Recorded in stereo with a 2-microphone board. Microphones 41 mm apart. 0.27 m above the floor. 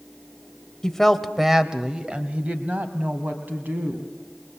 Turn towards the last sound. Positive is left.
turn(degrees=-60)  # may be behind; listen again after turning